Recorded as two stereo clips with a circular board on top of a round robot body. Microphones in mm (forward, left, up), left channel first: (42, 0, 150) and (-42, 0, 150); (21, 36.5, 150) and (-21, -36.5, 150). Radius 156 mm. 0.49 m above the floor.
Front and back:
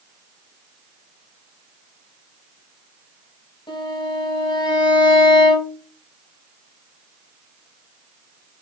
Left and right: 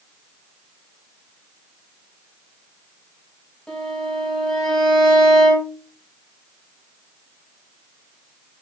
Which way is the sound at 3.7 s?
20° right.